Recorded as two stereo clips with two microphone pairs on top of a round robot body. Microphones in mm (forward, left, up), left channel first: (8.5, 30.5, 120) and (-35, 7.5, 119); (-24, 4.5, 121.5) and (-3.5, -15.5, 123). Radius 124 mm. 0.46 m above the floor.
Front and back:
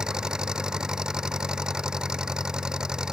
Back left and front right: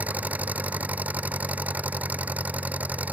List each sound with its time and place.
0.0 s an engine running: 75° right